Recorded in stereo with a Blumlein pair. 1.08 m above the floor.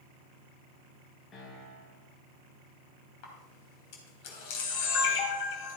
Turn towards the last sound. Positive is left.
turn(degrees=45)